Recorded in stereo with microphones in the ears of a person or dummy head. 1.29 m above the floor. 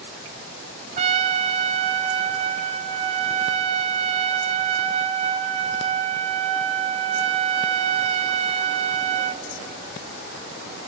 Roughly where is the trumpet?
Right.